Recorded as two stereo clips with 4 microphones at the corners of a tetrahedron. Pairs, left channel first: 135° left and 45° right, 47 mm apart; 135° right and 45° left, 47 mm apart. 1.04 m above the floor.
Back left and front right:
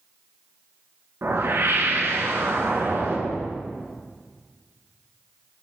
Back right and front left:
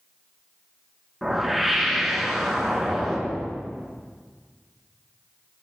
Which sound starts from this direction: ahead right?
A whoosh, at 1.2 s.